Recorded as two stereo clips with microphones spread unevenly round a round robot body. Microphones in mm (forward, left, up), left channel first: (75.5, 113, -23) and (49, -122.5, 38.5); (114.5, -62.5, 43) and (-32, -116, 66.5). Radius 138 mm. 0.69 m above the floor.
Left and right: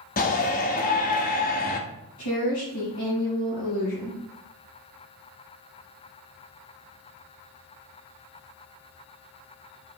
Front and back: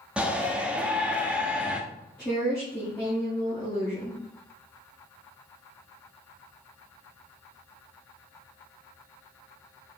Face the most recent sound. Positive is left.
turn(degrees=100)